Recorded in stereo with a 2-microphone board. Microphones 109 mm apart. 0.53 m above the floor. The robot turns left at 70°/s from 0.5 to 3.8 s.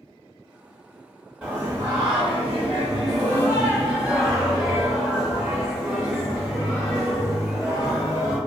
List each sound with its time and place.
1.4 s singing: 15° right, 1.2 m; by 8.4 s straight behind, 1.2 m